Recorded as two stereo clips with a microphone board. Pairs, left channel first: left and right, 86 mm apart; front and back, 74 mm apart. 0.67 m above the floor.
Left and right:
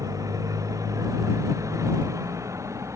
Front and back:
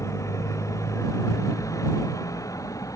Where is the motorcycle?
45° right; by 3.0 s 40° right.